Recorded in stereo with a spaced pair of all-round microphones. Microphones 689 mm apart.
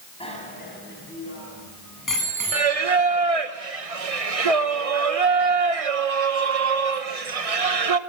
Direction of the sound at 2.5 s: 55° right (ahead or behind).